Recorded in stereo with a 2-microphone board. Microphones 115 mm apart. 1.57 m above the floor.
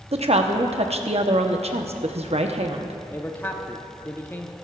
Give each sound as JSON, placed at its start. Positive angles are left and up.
{"t": 0.1, "sound": "a woman speaking", "side_deg": -65, "distance_m": 0.8}
{"t": 3.1, "sound": "a man speaking", "side_deg": 20, "distance_m": 0.8}